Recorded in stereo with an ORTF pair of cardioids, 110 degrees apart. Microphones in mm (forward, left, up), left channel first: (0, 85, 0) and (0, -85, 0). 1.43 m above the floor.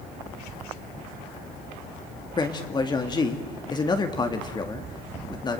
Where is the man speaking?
25° left, 2 m.